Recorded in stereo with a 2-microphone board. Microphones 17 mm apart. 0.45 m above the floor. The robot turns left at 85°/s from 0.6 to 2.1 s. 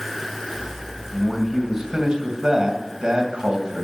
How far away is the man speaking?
About 2.5 m.